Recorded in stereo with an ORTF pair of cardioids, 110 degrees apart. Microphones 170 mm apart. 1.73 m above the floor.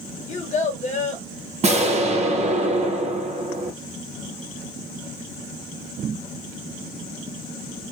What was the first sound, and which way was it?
A child speaking, 45° left.